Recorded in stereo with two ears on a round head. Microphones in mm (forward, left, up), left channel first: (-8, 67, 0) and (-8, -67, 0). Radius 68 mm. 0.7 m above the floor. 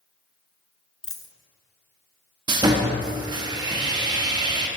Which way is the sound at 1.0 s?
5° left (ahead or behind).